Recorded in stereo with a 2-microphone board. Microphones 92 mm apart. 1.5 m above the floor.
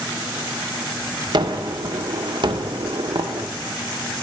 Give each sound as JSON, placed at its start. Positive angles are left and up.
{"t": 1.3, "sound": "a gunshot", "side_deg": -55, "distance_m": 0.9}